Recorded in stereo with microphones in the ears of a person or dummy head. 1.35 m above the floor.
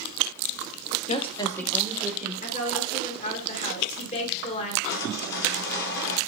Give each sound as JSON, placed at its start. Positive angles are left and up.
{"t": 1.1, "sound": "a woman speaking", "side_deg": 35, "distance_m": 1.4}
{"t": 2.4, "sound": "a woman speaking", "side_deg": 35, "distance_m": 1.7}
{"t": 4.9, "sound": "sawing", "side_deg": 60, "distance_m": 3.5}